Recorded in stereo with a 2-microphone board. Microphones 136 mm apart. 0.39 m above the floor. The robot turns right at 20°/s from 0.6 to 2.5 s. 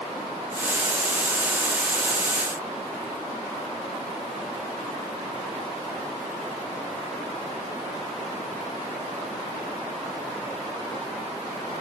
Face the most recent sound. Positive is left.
No sound to turn to.